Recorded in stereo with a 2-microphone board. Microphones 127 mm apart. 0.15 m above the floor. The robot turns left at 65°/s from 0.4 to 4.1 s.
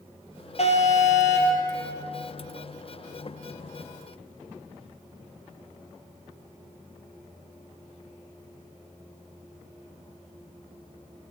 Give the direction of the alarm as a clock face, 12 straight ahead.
8 o'clock.